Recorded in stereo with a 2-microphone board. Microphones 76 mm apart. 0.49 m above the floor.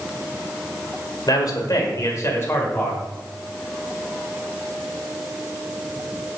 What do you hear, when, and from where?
1.3 s a man speaking: 60° left (ahead or behind), 1.8 m; by 3.1 s 20° left (ahead or behind), 2 m